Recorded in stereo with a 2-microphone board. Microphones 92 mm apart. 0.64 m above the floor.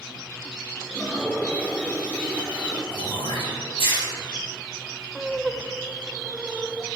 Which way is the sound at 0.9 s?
15° left (ahead or behind).